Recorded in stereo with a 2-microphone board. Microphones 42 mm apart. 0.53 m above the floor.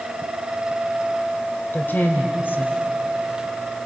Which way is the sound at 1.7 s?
60° left (ahead or behind).